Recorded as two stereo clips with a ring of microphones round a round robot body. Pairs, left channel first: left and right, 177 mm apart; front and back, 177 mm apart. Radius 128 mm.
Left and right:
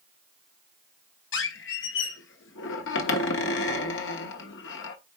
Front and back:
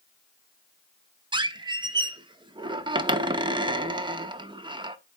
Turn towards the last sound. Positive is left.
turn(degrees=115)